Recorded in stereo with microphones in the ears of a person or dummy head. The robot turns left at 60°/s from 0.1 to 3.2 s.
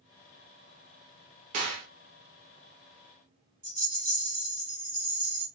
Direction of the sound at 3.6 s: 35° right (ahead or behind).